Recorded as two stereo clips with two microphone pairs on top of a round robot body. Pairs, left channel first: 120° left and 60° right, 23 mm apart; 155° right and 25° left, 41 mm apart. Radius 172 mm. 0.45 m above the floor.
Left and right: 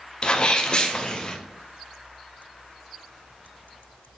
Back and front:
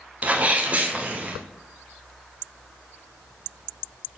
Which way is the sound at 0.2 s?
80° left.